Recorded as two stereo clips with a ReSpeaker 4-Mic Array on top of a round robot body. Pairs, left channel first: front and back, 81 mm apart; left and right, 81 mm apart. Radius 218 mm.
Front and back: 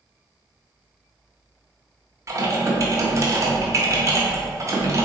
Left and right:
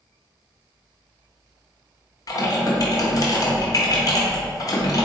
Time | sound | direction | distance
2.3 | typing on a keyboard | 130° left | 0.7 m